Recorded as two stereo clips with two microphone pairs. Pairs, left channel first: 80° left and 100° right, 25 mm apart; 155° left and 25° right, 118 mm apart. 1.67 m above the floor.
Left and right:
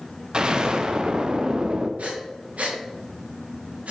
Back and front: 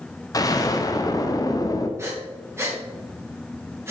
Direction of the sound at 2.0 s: 95° right.